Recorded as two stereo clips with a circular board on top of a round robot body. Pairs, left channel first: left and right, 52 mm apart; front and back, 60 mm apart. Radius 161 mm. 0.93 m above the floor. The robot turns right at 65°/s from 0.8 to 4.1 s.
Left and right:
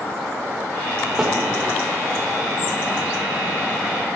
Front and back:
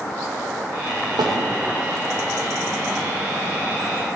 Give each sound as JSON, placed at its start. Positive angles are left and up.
{"t": 1.2, "sound": "a snare drum", "azimuth_deg": -175, "distance_m": 2.0}